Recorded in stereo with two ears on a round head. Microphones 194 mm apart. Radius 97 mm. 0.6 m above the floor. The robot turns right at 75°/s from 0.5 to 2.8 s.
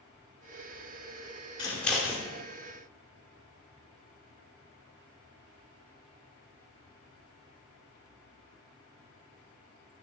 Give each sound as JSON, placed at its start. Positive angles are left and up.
{"t": 1.6, "sound": "scissors", "side_deg": 20, "distance_m": 1.8}